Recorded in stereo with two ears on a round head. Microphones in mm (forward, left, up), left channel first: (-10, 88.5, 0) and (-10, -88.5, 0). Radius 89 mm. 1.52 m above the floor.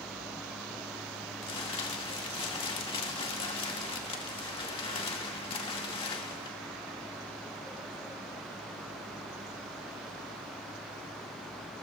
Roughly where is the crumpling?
Left.